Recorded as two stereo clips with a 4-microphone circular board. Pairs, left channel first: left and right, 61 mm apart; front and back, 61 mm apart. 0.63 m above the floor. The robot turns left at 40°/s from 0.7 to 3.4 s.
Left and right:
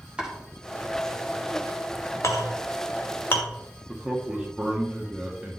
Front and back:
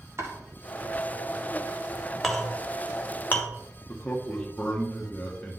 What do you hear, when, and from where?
0.2 s chopping: 155° right, 1.7 m
2.2 s a clink: 90° left, 0.9 m; by 3.5 s 45° left, 0.9 m
3.9 s a man speaking: 20° right, 0.8 m